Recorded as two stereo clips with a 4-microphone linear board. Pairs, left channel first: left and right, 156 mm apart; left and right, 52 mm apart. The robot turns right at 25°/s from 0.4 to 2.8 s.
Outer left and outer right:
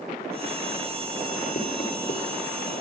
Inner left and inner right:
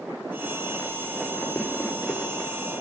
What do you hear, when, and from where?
1.6 s knocking: 60° left (ahead or behind), 4.5 m; by 2.2 s 70° left (ahead or behind), 4.5 m